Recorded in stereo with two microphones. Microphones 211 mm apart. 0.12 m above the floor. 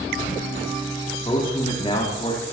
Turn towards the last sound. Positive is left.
turn(degrees=30)  # may be behind; listen again after turning